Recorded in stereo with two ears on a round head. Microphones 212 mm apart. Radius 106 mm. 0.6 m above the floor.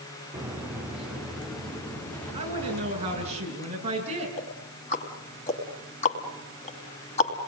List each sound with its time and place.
0.3 s footsteps: 10° right (ahead or behind), 3 m; by 3.3 s 10° left (ahead or behind), 7 m
2.3 s a woman speaking: 30° right (ahead or behind), 7.5 m
4.4 s ticking: 30° left (ahead or behind), 2.5 m